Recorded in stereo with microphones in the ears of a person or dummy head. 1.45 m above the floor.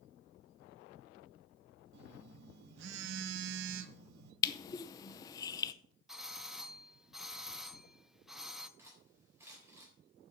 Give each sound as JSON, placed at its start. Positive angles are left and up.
{"t": 1.9, "sound": "a phone buzzing", "side_deg": -65, "distance_m": 1.0}
{"t": 4.4, "sound": "crushing", "side_deg": 25, "distance_m": 0.7}
{"t": 6.1, "sound": "a doorbell", "side_deg": 0, "distance_m": 0.6}
{"t": 8.8, "sound": "cutlery clinking", "side_deg": -10, "distance_m": 4.0}